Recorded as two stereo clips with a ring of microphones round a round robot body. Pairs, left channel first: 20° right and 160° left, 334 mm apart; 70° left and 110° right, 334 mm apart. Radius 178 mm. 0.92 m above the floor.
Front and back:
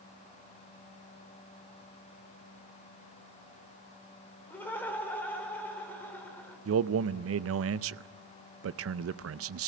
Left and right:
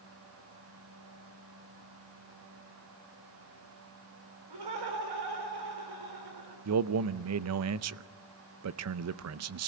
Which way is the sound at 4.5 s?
105° right.